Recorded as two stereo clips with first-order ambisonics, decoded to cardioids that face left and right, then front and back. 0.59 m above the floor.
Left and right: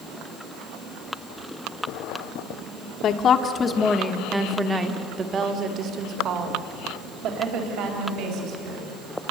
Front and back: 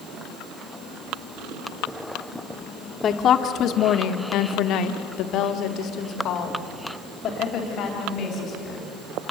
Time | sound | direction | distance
3.0 | a woman speaking | 50° left | 1.5 m